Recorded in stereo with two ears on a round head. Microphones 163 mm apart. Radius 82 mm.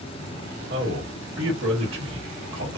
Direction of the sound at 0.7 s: 70° right (ahead or behind).